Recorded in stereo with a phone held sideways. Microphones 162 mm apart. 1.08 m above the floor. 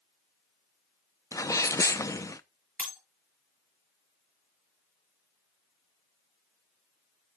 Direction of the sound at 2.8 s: 10° left (ahead or behind).